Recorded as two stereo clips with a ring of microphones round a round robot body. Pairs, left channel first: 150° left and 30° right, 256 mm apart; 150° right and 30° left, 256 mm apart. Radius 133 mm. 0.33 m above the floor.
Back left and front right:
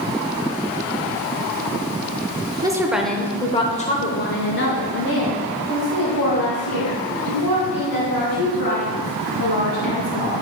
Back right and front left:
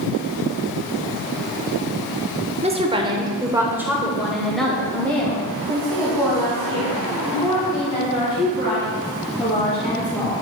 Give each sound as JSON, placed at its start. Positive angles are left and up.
{"t": 2.6, "sound": "a woman speaking", "azimuth_deg": 20, "distance_m": 0.9}